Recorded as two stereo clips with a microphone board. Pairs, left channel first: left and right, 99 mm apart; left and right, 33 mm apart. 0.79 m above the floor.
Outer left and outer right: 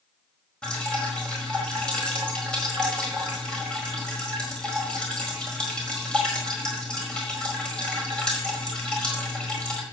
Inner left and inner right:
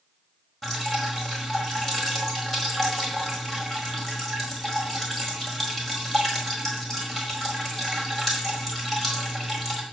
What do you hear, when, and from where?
0.6 s dripping: 10° left (ahead or behind), 4.5 m